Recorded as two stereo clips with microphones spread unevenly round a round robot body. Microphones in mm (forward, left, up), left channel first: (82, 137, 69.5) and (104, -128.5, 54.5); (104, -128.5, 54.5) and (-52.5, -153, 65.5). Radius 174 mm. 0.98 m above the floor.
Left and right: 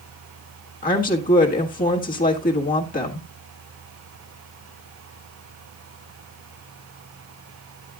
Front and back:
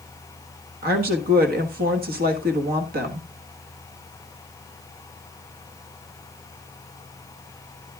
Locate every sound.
0.8 s a woman speaking: 160° left, 1.4 m